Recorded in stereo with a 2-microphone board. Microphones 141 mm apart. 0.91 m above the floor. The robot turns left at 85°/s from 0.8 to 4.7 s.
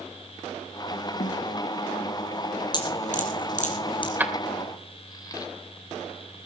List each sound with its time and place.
1.2 s a snare drum: 65° left (ahead or behind), 1.6 m
2.7 s dripping: 30° left (ahead or behind), 4 m
4.2 s keys jangling: 15° right (ahead or behind), 2.5 m; by 5.5 s 30° left (ahead or behind), 2.5 m